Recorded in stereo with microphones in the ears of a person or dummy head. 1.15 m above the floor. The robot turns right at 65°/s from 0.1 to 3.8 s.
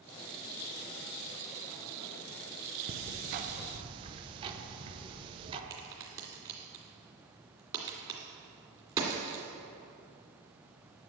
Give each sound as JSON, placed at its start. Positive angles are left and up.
{"t": 2.9, "sound": "ticking", "azimuth_deg": -95, "distance_m": 0.8}
{"t": 5.7, "sound": "a crack", "side_deg": -20, "distance_m": 2.0}